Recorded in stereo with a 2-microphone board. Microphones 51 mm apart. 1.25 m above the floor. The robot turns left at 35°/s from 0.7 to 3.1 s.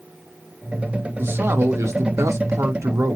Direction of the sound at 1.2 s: 45° right.